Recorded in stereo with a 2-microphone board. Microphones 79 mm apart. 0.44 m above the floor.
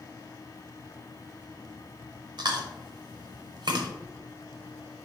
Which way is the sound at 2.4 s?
65° right (ahead or behind).